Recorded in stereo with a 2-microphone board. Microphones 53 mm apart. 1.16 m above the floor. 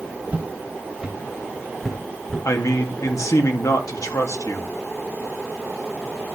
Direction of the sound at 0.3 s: 25° right (ahead or behind).